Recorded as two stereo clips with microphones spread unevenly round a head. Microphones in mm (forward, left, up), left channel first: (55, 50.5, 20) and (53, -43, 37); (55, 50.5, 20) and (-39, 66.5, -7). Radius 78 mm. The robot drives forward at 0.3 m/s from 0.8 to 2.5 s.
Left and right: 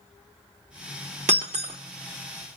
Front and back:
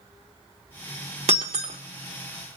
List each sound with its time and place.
1.3 s breaking glass: 135° right, 1.0 m; by 1.8 s 140° right, 1.1 m